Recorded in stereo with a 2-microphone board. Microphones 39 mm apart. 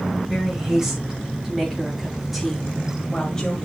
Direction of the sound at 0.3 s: 15° right (ahead or behind).